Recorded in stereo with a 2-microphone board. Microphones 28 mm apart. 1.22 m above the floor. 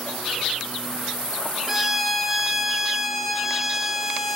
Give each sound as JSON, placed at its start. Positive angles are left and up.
{"t": 1.7, "sound": "a violin", "side_deg": -5, "distance_m": 0.8}